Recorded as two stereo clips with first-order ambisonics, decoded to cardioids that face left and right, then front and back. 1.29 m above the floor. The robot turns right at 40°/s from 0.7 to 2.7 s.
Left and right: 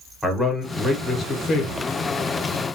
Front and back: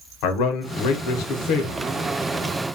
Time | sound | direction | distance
0.2 | a man speaking | 5° right | 0.7 m